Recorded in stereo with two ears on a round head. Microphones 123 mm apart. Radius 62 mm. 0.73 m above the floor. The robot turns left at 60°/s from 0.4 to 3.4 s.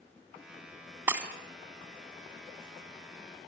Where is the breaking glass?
20° right (ahead or behind), 1.8 m; by 1.3 s 5° right (ahead or behind), 1.8 m.